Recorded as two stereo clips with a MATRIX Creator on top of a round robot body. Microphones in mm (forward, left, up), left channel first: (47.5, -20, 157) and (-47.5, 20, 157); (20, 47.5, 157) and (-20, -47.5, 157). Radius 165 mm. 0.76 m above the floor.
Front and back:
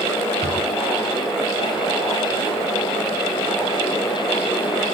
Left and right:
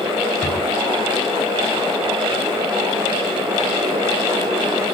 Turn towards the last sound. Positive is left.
turn(degrees=150)